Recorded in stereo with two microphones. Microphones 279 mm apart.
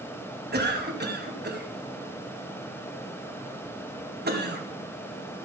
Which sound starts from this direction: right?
A cough, at 0.5 s.